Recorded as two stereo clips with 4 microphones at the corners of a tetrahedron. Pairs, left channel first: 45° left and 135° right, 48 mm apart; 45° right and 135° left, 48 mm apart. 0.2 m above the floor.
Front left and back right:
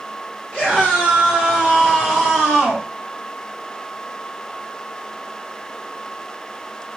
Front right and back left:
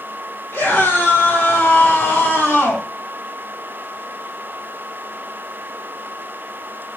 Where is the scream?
35° right, 4.5 m; by 2.9 s 50° right, 6 m.